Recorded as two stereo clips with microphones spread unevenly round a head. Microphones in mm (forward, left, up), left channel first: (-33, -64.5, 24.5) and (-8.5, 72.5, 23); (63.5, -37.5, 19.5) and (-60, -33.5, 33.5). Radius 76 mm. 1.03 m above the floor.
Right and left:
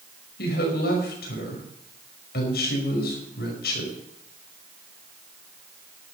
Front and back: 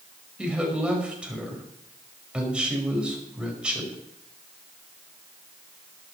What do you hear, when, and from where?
0.4 s a woman speaking: 100° right, 5.5 m